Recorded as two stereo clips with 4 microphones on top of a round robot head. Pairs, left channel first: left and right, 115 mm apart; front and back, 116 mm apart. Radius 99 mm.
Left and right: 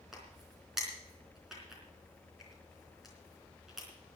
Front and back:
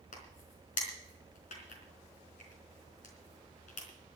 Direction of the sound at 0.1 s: Straight ahead.